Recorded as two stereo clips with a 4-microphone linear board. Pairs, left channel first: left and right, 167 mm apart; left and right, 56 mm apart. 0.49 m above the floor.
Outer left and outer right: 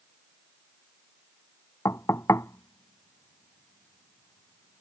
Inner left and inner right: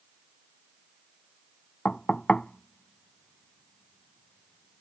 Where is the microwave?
No microwave in this recording.